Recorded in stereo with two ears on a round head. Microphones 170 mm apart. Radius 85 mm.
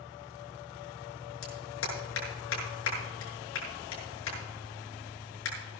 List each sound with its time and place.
1.4 s a clap: 85° left, 6.5 m